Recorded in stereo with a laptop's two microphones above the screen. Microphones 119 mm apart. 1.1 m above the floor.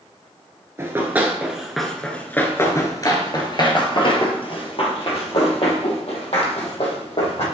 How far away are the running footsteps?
About 1.2 m.